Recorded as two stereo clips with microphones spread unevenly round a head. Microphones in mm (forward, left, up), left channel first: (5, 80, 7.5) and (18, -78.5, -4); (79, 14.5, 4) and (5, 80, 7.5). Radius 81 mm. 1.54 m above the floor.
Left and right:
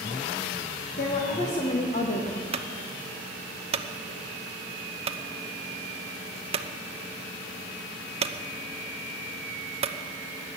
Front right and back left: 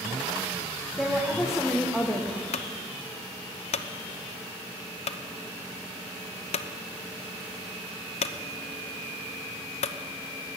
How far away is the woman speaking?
About 1.9 m.